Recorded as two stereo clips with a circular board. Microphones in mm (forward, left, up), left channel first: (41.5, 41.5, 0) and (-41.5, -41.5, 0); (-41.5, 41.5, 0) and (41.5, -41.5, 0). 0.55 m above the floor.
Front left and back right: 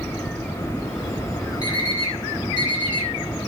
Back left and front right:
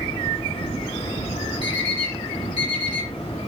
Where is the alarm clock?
100° left, 2.5 m.